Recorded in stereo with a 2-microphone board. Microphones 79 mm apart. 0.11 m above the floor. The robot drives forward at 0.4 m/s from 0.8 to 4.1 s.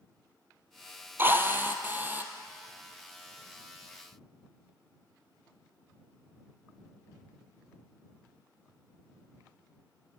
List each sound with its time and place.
1.2 s a drill: 30° right (ahead or behind), 2.0 m; by 2.3 s 25° right (ahead or behind), 2.5 m